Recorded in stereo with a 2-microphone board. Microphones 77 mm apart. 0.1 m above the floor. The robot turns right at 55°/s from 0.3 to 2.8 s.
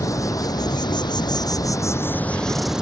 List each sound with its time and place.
0.0 s an insect: 50° left; by 2.8 s 170° right